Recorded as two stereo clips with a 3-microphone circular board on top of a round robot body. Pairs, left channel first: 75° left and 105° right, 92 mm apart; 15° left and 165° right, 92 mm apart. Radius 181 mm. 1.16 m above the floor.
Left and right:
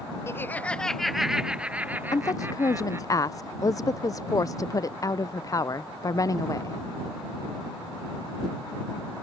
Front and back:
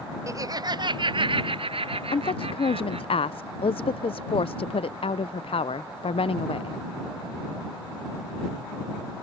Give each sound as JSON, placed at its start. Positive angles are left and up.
{"t": 0.3, "sound": "laughter", "azimuth_deg": 140}
{"t": 2.1, "sound": "a woman speaking", "azimuth_deg": 20}